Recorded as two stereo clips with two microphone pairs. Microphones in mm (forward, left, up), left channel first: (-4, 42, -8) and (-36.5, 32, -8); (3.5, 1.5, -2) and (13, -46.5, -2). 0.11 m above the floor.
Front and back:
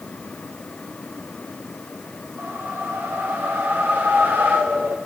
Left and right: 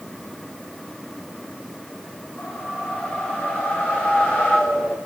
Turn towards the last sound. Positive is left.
turn(degrees=170)